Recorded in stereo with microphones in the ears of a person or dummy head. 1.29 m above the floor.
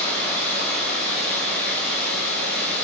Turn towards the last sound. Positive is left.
turn(degrees=10)  # may be behind; listen again after turning